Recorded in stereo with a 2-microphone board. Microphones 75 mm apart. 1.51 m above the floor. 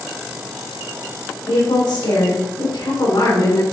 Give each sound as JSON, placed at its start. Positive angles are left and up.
{"t": 1.5, "sound": "a woman speaking", "side_deg": 85, "distance_m": 5.5}